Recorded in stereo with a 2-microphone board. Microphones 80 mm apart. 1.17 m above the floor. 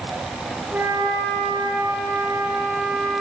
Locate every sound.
0.7 s a flute: 30° right (ahead or behind), 6 m